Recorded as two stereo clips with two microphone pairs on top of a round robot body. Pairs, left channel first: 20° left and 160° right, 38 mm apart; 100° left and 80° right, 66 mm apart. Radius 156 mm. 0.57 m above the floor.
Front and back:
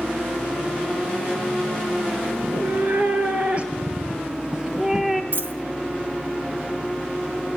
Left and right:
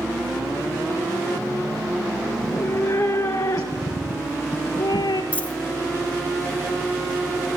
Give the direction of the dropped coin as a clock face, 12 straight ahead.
6 o'clock.